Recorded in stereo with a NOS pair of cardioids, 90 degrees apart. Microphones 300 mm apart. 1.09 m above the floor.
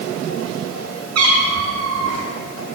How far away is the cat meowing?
About 4.5 m.